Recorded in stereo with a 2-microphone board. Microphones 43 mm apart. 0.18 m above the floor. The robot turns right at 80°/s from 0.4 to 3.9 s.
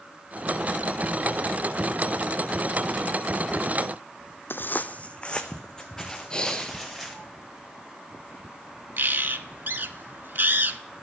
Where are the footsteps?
60° left (ahead or behind), 0.5 m; by 7.2 s 5° left (ahead or behind), 2 m.